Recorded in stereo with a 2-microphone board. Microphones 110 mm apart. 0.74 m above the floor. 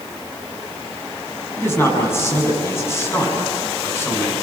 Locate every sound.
1.6 s a man speaking: 25° left (ahead or behind), 8 m